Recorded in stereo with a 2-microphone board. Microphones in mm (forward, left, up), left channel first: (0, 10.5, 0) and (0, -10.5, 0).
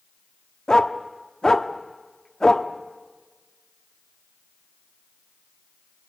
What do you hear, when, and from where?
0.7 s a dog barking: 35° left (ahead or behind), 1.0 m